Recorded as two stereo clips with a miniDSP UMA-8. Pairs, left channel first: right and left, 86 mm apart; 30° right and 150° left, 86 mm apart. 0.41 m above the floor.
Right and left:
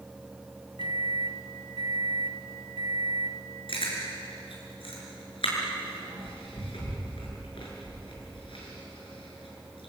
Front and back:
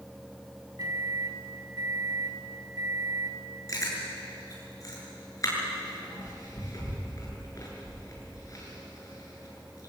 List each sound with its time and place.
0.8 s a microwave: 110° left, 2.5 m
3.7 s chewing: 80° right, 7.5 m